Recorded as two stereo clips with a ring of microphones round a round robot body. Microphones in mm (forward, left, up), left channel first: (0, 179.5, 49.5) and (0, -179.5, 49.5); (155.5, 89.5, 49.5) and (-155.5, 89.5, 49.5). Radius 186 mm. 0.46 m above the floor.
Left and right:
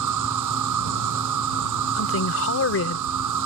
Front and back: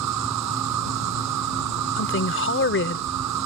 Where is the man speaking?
45° left.